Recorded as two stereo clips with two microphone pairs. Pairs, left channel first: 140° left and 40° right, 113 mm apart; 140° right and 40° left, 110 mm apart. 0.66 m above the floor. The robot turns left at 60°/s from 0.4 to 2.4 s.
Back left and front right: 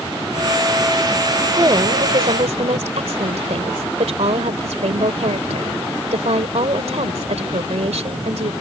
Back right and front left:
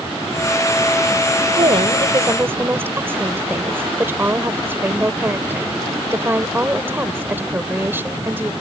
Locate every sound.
1.6 s a woman speaking: 20° left; by 8.5 s 30° right